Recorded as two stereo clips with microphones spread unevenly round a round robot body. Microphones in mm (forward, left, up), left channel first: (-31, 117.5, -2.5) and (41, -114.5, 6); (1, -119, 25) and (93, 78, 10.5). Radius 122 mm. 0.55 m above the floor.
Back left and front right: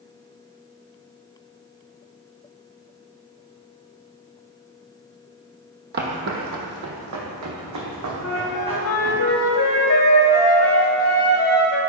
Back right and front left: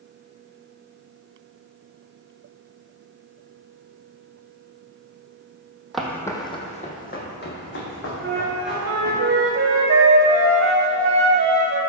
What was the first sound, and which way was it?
Footsteps, 25° right.